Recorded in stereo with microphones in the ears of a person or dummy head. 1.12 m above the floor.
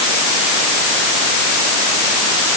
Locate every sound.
Only background noise.